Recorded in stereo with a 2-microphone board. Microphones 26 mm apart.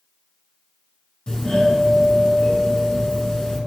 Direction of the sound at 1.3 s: 25° left (ahead or behind).